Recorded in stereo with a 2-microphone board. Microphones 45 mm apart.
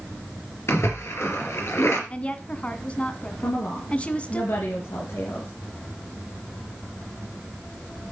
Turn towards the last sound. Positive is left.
turn(degrees=70)  # may be behind; listen again after turning